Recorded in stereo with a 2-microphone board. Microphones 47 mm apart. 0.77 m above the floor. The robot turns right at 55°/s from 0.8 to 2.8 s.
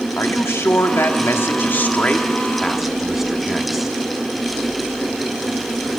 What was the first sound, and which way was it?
A man speaking, 80° left.